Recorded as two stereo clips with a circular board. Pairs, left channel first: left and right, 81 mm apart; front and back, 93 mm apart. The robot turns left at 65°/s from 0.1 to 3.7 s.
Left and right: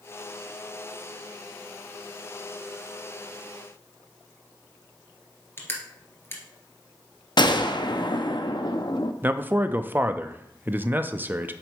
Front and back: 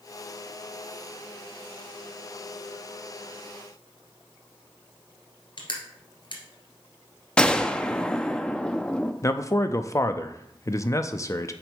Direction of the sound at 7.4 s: 80° left.